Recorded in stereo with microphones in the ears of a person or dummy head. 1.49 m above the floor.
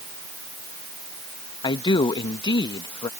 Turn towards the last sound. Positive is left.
turn(degrees=25)  # may be behind; listen again after turning